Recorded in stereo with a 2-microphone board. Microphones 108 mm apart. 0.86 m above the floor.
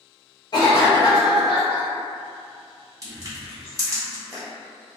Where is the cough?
45° left (ahead or behind), 0.7 m.